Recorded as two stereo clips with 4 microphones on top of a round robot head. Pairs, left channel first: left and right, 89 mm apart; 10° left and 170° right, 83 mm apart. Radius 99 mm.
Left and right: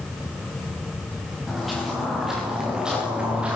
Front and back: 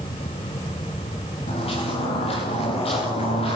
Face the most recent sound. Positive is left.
turn(degrees=-10)